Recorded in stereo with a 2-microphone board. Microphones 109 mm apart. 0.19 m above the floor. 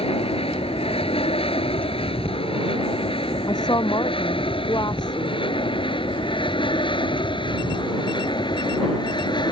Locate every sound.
0.0 s an aircraft: 60° left (ahead or behind); by 9.5 s 45° left (ahead or behind)
3.5 s a woman speaking: 40° left (ahead or behind)